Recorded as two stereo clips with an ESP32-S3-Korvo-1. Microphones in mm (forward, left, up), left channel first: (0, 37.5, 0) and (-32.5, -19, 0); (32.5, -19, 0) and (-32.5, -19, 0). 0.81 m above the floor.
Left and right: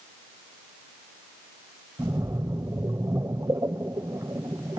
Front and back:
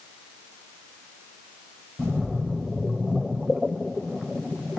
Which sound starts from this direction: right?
A splash, at 2.0 s.